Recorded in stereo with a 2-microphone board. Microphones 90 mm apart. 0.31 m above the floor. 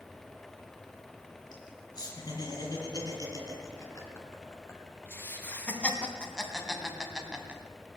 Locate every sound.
1.5 s laughter: 50° left (ahead or behind), 4 m; by 7.6 s 15° right (ahead or behind), 2 m